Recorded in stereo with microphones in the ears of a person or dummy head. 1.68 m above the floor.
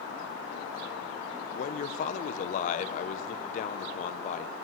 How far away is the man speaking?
About 1.5 m.